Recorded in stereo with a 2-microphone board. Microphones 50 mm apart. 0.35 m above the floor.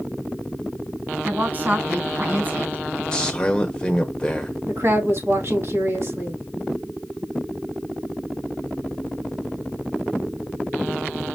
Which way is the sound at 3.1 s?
15° left (ahead or behind).